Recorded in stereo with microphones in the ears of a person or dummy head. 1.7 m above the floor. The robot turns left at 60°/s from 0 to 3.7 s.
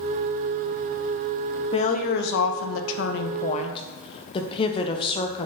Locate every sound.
1.7 s a woman speaking: 150° left, 0.9 m; by 5.5 s 35° left, 0.9 m